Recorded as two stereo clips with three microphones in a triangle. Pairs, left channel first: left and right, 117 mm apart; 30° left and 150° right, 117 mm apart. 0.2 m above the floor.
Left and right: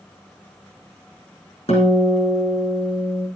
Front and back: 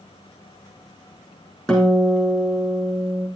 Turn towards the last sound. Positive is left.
turn(degrees=115)